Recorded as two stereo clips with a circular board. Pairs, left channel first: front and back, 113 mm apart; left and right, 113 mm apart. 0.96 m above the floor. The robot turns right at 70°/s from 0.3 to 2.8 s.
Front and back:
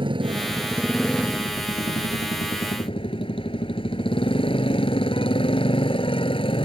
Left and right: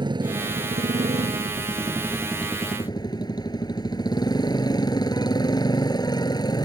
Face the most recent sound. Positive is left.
turn(degrees=35)